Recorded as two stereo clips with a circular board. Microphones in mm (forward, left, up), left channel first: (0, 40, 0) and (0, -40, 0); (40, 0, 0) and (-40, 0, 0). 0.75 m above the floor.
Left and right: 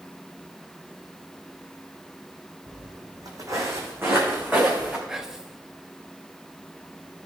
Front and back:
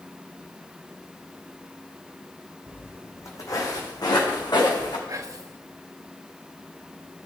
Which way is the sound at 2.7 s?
65° right.